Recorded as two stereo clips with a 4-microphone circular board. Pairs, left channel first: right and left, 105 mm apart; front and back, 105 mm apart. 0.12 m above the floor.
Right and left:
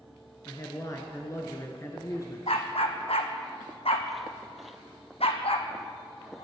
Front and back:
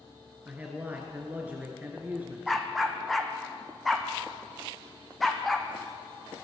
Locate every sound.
0.5 s a man speaking: 120° right, 1.5 m
2.5 s a dog barking: 90° right, 1.5 m